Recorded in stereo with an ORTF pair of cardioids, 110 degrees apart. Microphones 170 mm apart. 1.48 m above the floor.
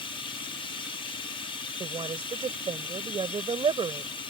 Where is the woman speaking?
30° right.